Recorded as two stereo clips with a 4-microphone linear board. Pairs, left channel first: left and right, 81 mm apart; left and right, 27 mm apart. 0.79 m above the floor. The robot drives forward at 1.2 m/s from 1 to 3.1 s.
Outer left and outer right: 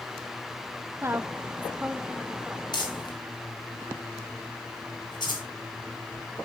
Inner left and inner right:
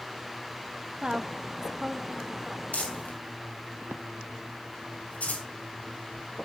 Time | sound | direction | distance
1.0 | a woman speaking | 30° right (ahead or behind) | 0.6 m
2.7 | crumpling | 60° left (ahead or behind) | 3.5 m